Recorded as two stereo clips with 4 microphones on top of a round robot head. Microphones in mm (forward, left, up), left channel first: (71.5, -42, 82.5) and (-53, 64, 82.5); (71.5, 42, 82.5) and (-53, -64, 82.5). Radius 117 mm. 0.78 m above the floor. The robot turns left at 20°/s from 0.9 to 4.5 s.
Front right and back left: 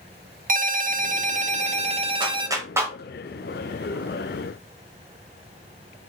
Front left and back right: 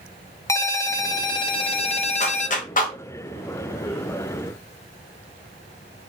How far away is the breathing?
I don't hear breathing.